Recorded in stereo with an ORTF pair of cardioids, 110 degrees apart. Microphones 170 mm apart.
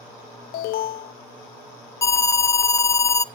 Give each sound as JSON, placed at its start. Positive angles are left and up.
{"t": 0.5, "sound": "an alarm", "azimuth_deg": 70, "distance_m": 1.1}
{"t": 2.0, "sound": "an alarm", "azimuth_deg": 20, "distance_m": 0.9}